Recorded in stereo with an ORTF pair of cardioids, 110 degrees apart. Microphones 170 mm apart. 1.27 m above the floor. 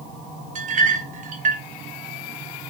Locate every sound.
0.6 s a clink: 50° right, 1.0 m